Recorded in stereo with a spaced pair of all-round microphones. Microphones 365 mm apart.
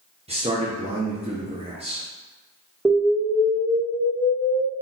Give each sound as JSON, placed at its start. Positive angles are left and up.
{"t": 0.3, "sound": "a man speaking", "side_deg": -15, "distance_m": 0.6}
{"t": 2.9, "sound": "an explosion", "side_deg": 0, "distance_m": 1.0}